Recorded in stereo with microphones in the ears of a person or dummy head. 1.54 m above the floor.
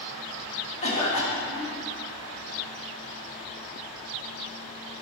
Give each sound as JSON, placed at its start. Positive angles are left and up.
{"t": 0.8, "sound": "a cough", "side_deg": 35, "distance_m": 2.0}